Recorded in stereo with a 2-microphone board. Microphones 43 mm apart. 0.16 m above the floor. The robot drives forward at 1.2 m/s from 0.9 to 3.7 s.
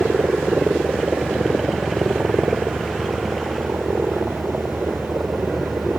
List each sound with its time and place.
0.0 s a helicopter: 45° right (ahead or behind); by 6.0 s 50° right (ahead or behind)